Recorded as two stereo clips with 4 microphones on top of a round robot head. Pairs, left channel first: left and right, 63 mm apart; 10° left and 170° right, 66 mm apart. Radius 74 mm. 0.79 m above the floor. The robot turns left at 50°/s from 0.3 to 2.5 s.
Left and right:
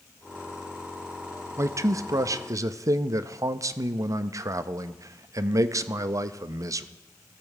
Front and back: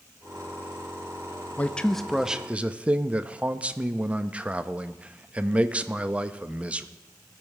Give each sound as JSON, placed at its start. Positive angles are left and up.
{"t": 1.6, "sound": "a man speaking", "azimuth_deg": -55, "distance_m": 0.6}